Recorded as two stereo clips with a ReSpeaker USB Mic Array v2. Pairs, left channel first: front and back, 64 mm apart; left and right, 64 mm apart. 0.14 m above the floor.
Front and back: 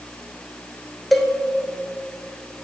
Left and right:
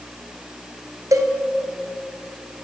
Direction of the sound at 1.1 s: 90° right.